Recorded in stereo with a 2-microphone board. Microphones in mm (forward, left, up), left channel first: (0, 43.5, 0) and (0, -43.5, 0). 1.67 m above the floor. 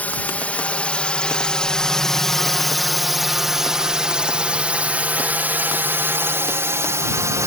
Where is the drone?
20° left (ahead or behind); by 7.5 s 35° right (ahead or behind).